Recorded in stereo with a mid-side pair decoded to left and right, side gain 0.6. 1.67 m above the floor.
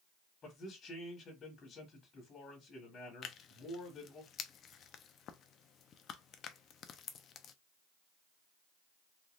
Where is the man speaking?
40° left, 1.5 m.